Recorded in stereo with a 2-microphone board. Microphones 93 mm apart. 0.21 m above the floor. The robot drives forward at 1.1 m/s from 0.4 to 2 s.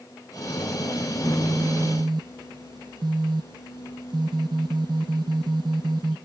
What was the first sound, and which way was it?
A phone buzzing, 30° right (ahead or behind).